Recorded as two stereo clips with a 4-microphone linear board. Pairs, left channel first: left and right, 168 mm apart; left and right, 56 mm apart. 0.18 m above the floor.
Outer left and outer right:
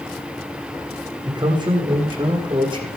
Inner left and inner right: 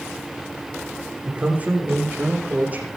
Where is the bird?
No bird in this recording.